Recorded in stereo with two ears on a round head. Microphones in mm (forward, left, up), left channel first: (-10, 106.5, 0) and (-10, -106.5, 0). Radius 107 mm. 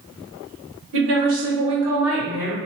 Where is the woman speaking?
55° right (ahead or behind), 1.4 m; by 2.6 s 10° left (ahead or behind), 1.7 m.